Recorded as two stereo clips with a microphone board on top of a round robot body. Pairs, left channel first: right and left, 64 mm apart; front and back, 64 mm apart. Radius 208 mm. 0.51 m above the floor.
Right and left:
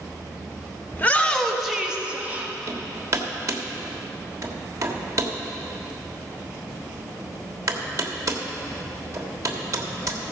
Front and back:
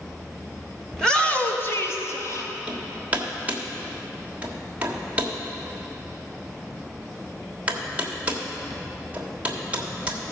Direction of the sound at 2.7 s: 115° left.